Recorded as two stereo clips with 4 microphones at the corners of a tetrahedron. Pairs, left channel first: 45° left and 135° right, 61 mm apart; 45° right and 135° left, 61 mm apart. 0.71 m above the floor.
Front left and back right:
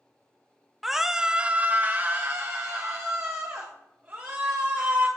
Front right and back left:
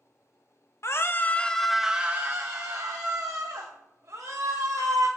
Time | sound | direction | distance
0.8 | a scream | 50° right | 0.6 m